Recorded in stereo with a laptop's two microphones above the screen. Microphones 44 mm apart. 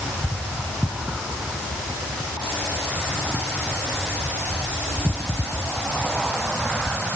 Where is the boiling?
I don't hear boiling.